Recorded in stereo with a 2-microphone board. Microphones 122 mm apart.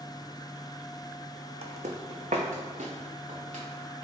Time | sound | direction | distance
1.6 | footsteps | 55° right (ahead or behind) | 0.5 m